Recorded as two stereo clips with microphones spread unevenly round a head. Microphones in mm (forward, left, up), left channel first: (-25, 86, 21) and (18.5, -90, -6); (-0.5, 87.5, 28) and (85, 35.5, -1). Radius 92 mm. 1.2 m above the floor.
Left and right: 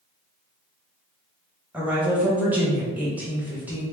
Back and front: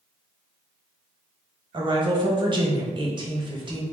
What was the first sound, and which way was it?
A woman speaking, 5° left.